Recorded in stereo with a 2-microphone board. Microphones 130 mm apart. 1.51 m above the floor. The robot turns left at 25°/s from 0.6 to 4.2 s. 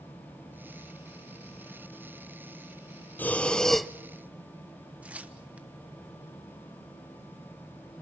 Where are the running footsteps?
No running footsteps in this recording.